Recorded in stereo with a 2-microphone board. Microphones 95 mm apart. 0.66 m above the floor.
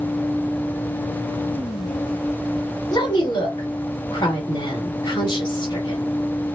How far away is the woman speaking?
About 2 m.